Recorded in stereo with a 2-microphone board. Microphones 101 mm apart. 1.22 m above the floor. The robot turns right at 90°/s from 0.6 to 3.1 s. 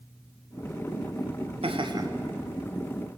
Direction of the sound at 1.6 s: 75° right.